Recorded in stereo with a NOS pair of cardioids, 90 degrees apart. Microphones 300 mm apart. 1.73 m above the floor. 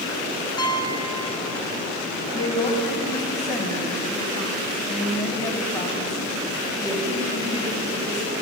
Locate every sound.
0.6 s a piano: 15° left, 0.8 m
2.3 s a woman speaking: 10° left, 2 m